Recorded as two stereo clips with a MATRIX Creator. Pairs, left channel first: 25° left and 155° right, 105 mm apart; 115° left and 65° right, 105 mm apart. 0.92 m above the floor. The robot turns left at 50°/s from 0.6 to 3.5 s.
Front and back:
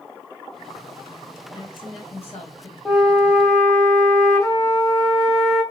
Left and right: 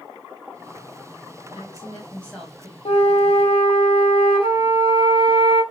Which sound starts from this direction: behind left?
A flute, at 2.9 s.